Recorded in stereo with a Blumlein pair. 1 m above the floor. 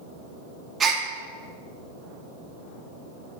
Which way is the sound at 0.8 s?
20° right.